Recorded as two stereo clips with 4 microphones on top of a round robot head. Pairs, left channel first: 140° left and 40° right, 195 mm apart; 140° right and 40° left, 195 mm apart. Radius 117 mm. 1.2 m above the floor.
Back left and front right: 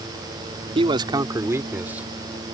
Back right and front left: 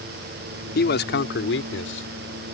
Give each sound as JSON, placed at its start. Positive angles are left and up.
{"t": 0.8, "sound": "a man speaking", "azimuth_deg": -105}